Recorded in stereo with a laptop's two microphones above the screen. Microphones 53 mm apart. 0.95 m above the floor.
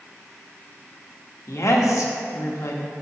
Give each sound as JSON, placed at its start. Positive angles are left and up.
{"t": 1.5, "sound": "a woman speaking", "side_deg": 75, "distance_m": 1.2}